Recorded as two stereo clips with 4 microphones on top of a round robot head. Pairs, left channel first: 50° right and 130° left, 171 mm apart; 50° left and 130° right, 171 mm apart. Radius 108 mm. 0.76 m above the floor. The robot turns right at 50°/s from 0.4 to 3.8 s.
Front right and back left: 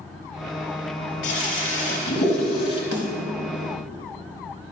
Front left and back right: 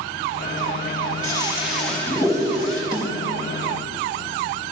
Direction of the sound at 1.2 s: 65° right.